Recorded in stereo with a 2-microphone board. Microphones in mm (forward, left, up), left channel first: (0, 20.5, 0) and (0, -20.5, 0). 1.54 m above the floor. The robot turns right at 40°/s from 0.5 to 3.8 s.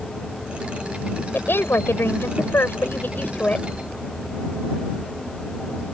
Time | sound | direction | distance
1.3 | a woman speaking | 60° left | ?